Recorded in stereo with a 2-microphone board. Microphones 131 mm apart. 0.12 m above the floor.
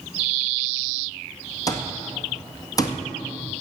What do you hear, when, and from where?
1.7 s an alarm clock: 30° left (ahead or behind), 1.9 m